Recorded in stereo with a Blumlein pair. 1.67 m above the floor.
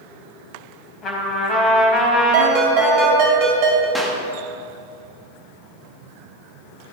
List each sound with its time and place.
1.0 s a trumpet: 20° left, 4.5 m
2.3 s a ringtone: 40° right, 4.5 m
4.0 s a clap: straight ahead, 2 m